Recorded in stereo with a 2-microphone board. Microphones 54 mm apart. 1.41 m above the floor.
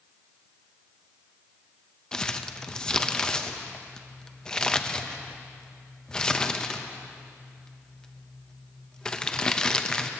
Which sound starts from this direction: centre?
Crumpling, at 2.1 s.